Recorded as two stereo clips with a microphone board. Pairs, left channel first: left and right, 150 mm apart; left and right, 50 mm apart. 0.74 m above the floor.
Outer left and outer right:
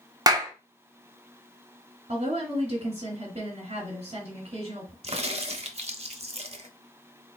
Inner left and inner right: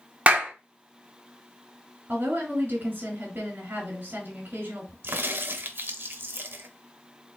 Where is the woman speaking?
45° right (ahead or behind), 1.6 m.